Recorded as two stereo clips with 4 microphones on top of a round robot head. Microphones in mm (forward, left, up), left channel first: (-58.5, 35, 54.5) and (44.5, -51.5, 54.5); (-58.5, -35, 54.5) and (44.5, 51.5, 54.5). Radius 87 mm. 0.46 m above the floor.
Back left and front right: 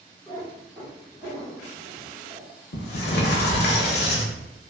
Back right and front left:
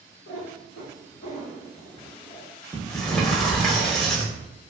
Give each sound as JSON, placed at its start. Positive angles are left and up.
{"t": 0.3, "sound": "a cat meowing", "azimuth_deg": -135, "distance_m": 1.4}
{"t": 2.7, "sound": "a sliding door", "azimuth_deg": 135, "distance_m": 0.6}